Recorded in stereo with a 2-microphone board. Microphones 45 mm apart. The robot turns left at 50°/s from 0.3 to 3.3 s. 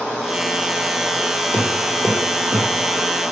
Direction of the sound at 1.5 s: 20° left (ahead or behind).